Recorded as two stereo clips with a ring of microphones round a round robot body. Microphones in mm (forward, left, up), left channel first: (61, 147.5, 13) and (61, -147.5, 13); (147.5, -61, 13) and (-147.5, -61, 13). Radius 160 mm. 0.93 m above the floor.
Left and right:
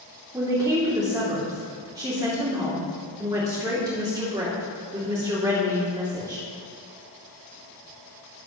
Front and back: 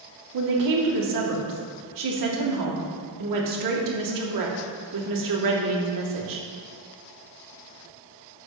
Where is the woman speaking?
170° right, 2 m.